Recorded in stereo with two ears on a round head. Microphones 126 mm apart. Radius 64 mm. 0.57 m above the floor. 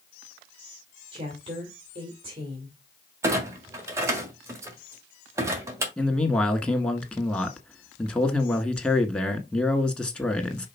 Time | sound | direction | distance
1.1 | a woman speaking | 35° right (ahead or behind) | 2.0 m
3.2 | a clunk | 20° right (ahead or behind) | 1.5 m
6.0 | a man speaking | 10° left (ahead or behind) | 1.3 m